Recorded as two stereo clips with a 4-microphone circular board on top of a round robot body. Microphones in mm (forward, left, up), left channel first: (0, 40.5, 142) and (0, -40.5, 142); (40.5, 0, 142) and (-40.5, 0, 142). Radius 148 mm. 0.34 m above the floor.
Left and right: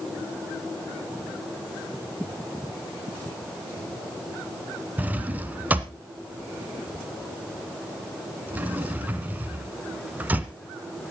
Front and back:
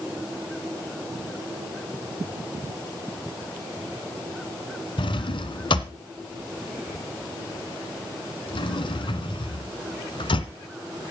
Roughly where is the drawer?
Ahead.